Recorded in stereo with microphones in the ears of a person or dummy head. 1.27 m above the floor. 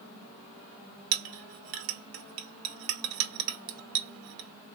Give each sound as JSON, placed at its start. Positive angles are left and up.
{"t": 1.1, "sound": "a clink", "side_deg": -75, "distance_m": 0.6}